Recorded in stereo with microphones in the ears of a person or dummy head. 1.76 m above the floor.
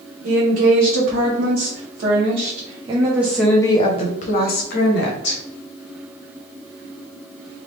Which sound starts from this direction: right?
A woman speaking, at 0.2 s.